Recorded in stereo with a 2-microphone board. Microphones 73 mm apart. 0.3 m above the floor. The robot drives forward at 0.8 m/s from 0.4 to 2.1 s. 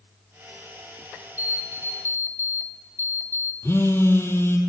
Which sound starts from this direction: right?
An alarm clock, at 1.4 s.